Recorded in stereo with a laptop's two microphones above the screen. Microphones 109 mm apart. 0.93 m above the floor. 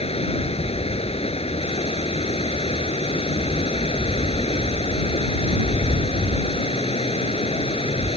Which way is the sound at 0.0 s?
70° left (ahead or behind).